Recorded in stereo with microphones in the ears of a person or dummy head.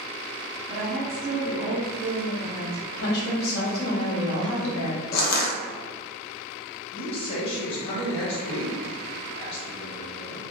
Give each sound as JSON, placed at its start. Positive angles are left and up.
{"t": 0.7, "sound": "a woman speaking", "side_deg": -25, "distance_m": 1.6}
{"t": 2.9, "sound": "a woman speaking", "side_deg": 60, "distance_m": 1.0}
{"t": 5.1, "sound": "crushing", "side_deg": 55, "distance_m": 0.6}
{"t": 6.9, "sound": "a man speaking", "side_deg": 35, "distance_m": 1.3}